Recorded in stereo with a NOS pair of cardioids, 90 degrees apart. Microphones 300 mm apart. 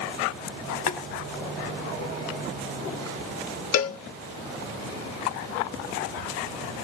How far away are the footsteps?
I don't hear footsteps.